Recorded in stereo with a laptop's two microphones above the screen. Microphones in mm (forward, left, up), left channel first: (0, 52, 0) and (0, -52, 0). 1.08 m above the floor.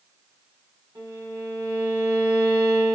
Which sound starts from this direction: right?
A violin, at 0.9 s.